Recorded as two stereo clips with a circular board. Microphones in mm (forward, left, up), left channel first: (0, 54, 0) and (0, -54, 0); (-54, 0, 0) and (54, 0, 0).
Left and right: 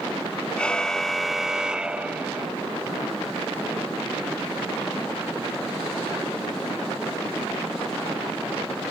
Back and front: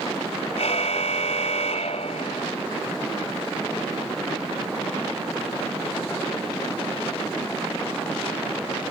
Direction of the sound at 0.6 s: 170° left.